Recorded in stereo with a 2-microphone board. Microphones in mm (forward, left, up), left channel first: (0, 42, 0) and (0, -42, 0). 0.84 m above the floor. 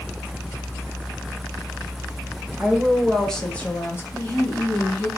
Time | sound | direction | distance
2.6 | a woman speaking | 5° right (ahead or behind) | 1.2 m
4.1 | a woman speaking | 15° left (ahead or behind) | 2.5 m